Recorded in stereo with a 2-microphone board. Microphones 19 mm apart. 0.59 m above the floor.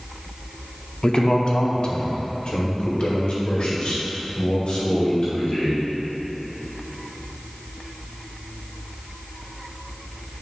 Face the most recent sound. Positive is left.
turn(degrees=65)  # may be behind; listen again after turning